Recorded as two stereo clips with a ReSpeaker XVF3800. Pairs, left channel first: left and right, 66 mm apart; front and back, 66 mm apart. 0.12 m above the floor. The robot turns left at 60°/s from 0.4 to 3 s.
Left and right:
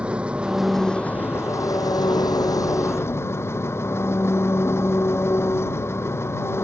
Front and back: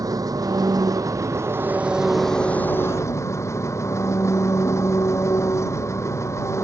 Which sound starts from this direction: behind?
An engine running, at 0.0 s.